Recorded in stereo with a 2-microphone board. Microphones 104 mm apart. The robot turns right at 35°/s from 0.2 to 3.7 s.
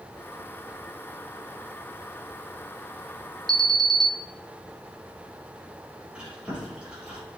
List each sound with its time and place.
3.5 s an alarm: 40° right (ahead or behind), 0.6 m
6.1 s chewing: 10° right (ahead or behind), 5.5 m